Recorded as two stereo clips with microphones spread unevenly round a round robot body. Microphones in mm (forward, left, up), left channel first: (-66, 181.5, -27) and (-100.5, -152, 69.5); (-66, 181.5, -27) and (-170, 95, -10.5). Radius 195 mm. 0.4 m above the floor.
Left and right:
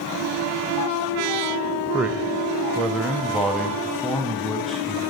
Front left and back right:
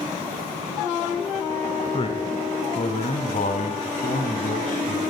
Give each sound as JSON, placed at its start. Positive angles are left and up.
{"t": 1.9, "sound": "a man speaking", "azimuth_deg": 5, "distance_m": 1.9}